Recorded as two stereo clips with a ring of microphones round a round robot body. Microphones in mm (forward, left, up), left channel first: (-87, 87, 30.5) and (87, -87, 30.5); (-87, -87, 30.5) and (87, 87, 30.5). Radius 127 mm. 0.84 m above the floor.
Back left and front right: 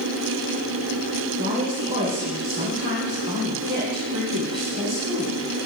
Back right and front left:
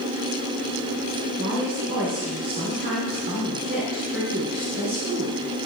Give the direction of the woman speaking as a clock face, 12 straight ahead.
12 o'clock.